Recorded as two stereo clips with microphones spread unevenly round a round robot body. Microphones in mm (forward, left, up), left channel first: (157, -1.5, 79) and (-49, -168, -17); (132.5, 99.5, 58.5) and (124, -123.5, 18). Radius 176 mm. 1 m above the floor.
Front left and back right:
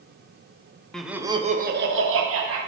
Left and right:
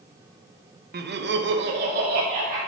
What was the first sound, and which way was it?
Laughter, 60° right.